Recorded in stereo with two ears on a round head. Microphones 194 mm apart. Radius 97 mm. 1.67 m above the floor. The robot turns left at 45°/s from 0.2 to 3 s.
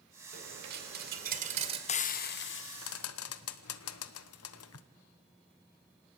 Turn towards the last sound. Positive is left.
turn(degrees=75)  # may be behind; listen again after turning